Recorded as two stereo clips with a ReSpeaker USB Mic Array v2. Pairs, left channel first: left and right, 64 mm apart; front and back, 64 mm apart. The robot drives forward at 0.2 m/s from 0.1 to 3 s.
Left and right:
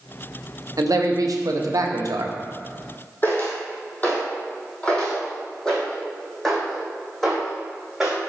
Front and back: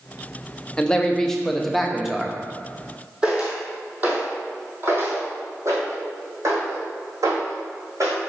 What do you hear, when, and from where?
0.8 s a man speaking: 75° right, 0.8 m; by 2.4 s 100° right, 0.8 m
3.2 s footsteps: 115° left, 1.9 m; by 8.2 s straight behind, 3 m